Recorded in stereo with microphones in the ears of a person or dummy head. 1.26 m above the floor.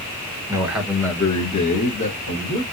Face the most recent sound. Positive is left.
turn(degrees=60)  # may be behind; listen again after turning